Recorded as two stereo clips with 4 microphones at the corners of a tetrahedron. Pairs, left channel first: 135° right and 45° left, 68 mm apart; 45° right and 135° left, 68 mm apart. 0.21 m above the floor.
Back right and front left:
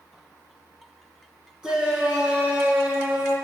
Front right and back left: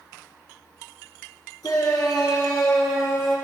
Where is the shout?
35° right, 3.5 m; by 3.4 s 20° right, 5 m.